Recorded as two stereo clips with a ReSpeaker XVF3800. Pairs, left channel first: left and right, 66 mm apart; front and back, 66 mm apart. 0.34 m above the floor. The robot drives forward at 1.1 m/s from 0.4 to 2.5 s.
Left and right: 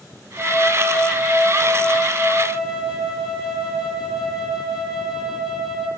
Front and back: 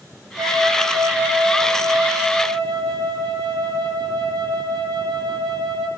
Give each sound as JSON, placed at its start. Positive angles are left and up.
{"t": 0.4, "sound": "a flute", "azimuth_deg": 180, "distance_m": 4.0}